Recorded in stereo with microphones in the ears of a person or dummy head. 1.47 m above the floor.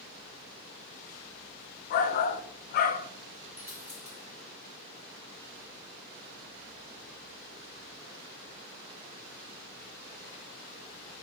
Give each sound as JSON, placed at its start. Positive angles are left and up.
{"t": 1.9, "sound": "a shout", "side_deg": 45, "distance_m": 0.6}
{"t": 3.6, "sound": "a dropped coin", "side_deg": -10, "distance_m": 1.6}